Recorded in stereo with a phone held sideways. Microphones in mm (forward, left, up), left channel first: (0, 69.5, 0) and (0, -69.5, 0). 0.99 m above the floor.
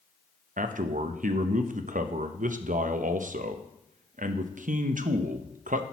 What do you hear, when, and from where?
0.6 s a man speaking: 70° right (ahead or behind), 0.6 m